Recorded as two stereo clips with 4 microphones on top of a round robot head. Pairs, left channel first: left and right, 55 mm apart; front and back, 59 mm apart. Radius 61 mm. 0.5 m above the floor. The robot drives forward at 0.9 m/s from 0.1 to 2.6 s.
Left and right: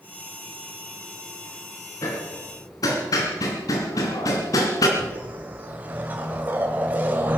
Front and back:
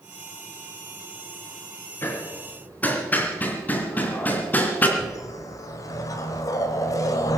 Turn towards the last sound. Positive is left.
turn(degrees=-25)